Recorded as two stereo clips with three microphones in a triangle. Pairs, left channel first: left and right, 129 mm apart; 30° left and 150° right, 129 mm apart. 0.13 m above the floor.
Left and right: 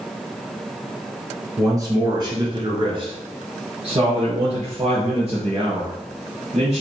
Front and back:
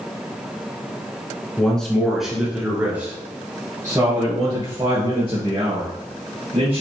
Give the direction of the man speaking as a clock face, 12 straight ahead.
2 o'clock.